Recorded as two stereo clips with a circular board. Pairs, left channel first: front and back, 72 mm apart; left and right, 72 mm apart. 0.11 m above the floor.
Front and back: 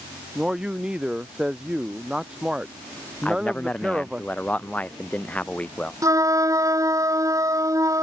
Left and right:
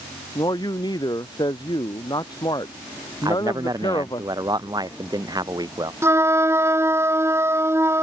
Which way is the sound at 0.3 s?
100° left.